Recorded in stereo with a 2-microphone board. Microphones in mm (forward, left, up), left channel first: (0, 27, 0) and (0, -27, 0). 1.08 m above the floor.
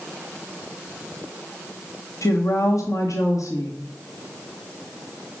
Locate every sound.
2.2 s a woman speaking: 80° left, 1.4 m